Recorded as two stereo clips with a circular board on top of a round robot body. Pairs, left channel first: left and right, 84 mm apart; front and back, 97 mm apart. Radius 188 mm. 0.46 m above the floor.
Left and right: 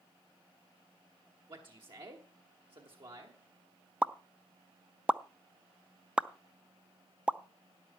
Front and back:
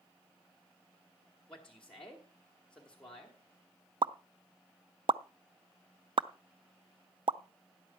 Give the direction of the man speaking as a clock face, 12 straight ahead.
3 o'clock.